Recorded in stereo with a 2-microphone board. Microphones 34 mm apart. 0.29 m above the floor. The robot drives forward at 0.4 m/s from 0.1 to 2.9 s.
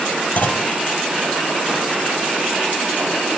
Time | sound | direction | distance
0.4 | a clunk | 55° left (ahead or behind) | 0.8 m